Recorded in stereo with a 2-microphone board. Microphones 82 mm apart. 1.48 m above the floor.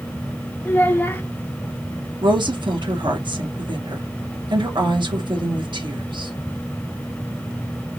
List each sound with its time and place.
0.7 s a child speaking: 25° left (ahead or behind), 0.9 m
2.2 s a woman speaking: 65° right (ahead or behind), 1.6 m